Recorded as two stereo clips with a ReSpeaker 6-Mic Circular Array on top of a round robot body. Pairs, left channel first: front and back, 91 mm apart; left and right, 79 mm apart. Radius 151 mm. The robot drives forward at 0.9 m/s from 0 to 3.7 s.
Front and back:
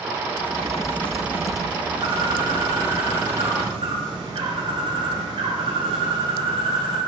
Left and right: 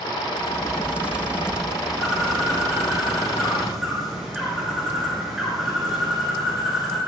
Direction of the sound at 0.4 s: 10° right.